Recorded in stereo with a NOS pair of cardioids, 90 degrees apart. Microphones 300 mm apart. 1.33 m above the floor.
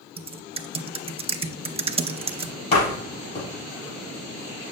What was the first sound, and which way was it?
Typing on a keyboard, 20° right.